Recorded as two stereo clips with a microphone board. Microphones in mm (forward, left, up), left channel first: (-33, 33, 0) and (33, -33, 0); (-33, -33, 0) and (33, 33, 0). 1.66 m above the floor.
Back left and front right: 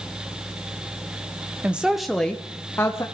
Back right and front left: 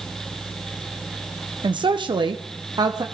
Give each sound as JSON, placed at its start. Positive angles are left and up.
{"t": 1.6, "sound": "a woman speaking", "azimuth_deg": 30, "distance_m": 0.8}